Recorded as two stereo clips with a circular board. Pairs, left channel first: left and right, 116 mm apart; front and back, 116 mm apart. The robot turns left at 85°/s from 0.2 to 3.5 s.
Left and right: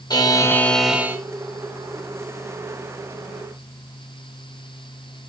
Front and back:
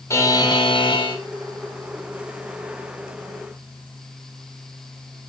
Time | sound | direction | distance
0.1 | a buzzer | 55° left | 1.3 m